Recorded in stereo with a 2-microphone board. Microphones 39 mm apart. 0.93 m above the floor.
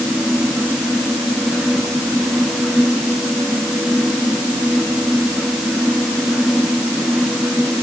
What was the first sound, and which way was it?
Only background noise.